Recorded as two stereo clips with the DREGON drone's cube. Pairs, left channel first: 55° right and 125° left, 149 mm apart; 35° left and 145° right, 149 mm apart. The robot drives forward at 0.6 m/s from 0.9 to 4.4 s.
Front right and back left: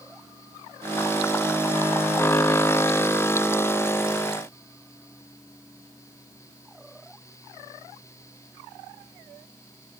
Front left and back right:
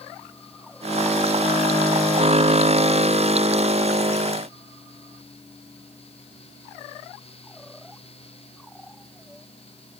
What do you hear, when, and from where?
Only background noise.